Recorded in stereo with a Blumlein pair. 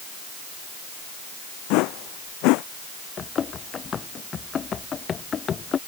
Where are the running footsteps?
20° left.